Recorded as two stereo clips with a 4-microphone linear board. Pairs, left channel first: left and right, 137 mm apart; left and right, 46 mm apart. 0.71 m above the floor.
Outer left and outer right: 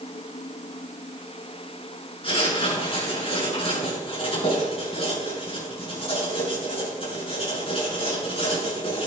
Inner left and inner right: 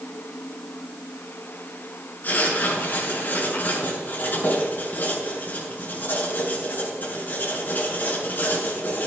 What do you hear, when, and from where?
2.2 s writing: 45° left (ahead or behind), 6.5 m